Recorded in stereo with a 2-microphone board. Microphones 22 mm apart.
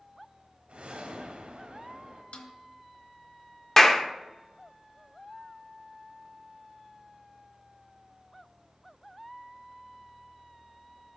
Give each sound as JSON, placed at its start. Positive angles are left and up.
{"t": 0.7, "sound": "a whoosh", "side_deg": -70, "distance_m": 1.7}
{"t": 2.3, "sound": "a snare drum", "side_deg": 75, "distance_m": 1.0}
{"t": 3.8, "sound": "a clap", "side_deg": 15, "distance_m": 0.7}